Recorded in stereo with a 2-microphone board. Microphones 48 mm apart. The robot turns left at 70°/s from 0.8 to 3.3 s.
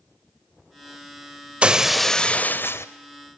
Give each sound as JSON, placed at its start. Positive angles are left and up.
{"t": 1.6, "sound": "breaking glass", "azimuth_deg": -155, "distance_m": 1.1}